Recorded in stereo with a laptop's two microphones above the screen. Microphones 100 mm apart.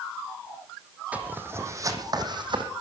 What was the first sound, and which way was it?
Footsteps, 15° right (ahead or behind).